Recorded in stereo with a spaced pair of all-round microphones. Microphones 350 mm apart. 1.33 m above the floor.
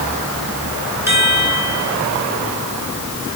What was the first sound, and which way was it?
A chime, 5° right (ahead or behind).